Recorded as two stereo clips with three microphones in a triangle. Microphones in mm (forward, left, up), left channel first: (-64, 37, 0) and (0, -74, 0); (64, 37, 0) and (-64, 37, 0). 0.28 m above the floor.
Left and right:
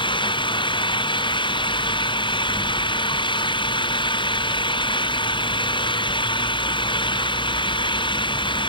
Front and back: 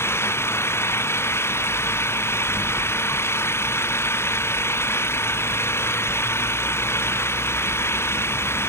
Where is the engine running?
70° left.